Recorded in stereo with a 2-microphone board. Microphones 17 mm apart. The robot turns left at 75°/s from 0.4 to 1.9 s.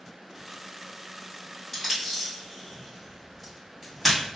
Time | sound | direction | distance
1.7 | tape being pulled | 5° right (ahead or behind) | 1.9 m